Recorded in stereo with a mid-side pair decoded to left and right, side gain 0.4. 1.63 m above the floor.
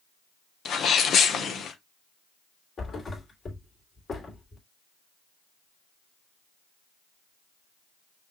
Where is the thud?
50° left, 3 m.